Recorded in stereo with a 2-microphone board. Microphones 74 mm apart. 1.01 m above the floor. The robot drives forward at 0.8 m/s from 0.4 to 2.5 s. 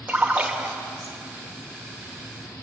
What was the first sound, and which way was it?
A splash, 20° right (ahead or behind).